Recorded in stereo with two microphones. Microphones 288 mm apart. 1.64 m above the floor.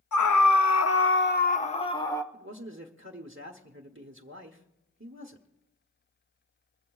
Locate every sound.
0.1 s a scream: 80° left, 0.7 m; by 2.2 s 10° left (ahead or behind), 1.2 m
2.3 s a man speaking: 45° right (ahead or behind), 1.0 m